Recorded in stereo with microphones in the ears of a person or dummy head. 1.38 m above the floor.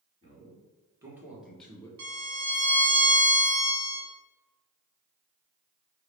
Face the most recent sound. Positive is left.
turn(degrees=-75)  # may be behind; listen again after turning